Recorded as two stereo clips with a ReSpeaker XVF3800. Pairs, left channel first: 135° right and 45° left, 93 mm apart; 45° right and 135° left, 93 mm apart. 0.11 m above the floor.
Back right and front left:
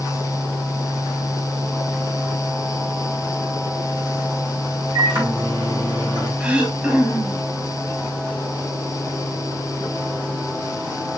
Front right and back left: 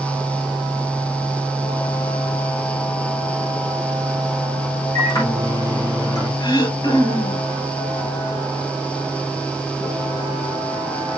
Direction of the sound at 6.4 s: 30° right.